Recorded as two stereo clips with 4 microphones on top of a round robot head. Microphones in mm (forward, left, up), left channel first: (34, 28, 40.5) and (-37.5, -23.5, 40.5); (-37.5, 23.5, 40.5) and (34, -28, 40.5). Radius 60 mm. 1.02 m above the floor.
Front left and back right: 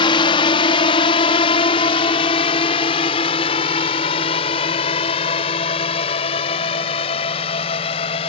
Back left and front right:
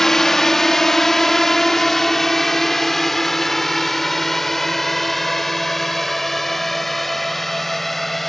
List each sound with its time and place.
0.0 s a drone: 60° left; by 8.3 s 55° left